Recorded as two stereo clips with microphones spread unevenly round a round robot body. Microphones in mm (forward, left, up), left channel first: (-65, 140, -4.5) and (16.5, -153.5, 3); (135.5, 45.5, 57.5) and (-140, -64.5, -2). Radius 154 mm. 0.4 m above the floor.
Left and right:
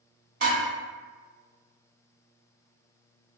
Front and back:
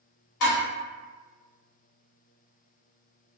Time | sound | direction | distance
0.4 | dishes clattering | 10° right | 1.4 m